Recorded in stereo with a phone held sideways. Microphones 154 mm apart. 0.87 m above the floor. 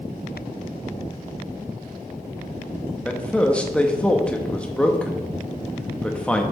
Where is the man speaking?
5° left (ahead or behind), 0.9 m.